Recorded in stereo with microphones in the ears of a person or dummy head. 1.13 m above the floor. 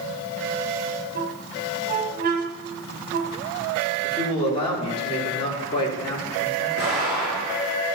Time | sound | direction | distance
1.1 | a squeak | 50° right (ahead or behind) | 1.1 m
4.0 | a man speaking | 30° left (ahead or behind) | 3 m
6.8 | an explosion | 70° left (ahead or behind) | 4 m